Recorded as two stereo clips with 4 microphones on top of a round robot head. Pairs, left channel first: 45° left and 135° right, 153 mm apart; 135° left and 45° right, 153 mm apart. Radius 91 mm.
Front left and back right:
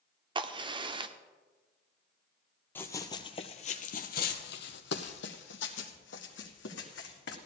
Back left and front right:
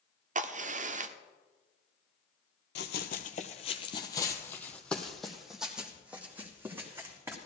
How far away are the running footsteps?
About 0.9 m.